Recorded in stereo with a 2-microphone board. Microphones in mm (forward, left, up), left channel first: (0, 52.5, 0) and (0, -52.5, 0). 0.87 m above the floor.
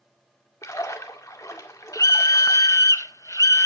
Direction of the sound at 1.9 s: 30° left (ahead or behind).